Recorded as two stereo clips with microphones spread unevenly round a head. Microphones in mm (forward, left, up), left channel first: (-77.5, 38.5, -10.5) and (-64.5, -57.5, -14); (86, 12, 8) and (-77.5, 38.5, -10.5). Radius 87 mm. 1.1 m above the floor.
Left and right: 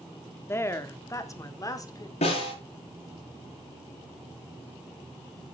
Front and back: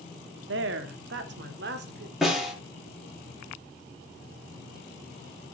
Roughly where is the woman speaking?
Behind.